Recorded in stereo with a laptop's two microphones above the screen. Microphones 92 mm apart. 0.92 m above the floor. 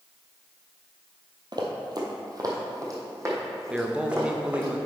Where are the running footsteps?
50° right (ahead or behind), 1.4 m; by 4.7 s 25° right (ahead or behind), 3.5 m.